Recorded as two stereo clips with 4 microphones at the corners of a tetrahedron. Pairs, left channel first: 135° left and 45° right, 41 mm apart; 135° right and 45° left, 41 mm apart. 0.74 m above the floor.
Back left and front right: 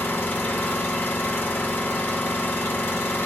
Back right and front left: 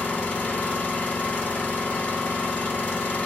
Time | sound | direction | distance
0.0 | an engine running | 165° left | 1.6 m